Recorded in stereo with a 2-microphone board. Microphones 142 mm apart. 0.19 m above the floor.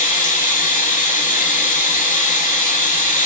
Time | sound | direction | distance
0.0 | running water | 70° left (ahead or behind) | 0.9 m